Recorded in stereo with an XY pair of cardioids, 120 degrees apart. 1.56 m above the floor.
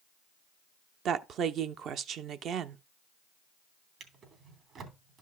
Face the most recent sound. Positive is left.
turn(degrees=-55)